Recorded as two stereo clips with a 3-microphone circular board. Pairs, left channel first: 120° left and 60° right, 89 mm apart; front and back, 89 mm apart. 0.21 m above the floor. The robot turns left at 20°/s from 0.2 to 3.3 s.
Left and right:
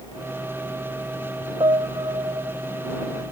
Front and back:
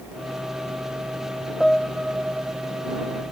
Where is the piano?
85° right; by 2.6 s 105° right.